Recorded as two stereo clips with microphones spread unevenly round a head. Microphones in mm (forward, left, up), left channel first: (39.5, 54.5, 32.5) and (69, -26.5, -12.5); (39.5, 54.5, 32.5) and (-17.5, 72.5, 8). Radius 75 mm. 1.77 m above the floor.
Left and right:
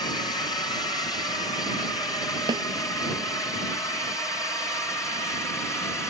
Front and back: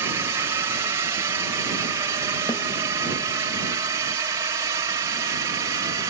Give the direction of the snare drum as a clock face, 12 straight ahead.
1 o'clock.